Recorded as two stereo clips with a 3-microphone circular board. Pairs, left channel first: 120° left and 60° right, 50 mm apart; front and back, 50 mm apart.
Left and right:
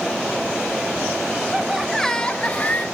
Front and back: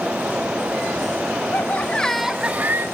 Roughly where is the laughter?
Ahead left.